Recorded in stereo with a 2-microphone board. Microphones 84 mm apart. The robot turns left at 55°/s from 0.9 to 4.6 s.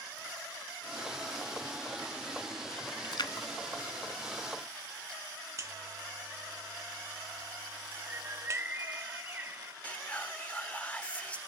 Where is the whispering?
15° left (ahead or behind), 1.0 m.